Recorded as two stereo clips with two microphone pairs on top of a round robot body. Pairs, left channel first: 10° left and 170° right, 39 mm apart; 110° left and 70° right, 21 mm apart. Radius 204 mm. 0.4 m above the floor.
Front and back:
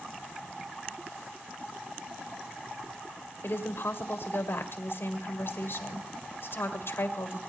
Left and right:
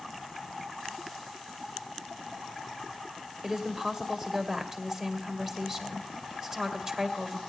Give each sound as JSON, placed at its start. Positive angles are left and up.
{"t": 3.4, "sound": "a woman speaking", "azimuth_deg": -5, "distance_m": 2.5}